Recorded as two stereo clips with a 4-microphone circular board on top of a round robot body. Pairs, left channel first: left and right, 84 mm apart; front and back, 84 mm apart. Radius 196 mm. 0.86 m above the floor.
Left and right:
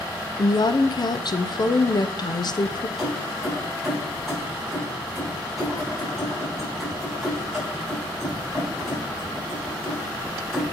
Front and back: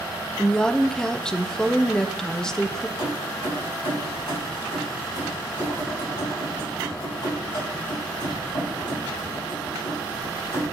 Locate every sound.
0.4 s a woman speaking: 80° left, 0.7 m
3.0 s keys jangling: straight ahead, 4 m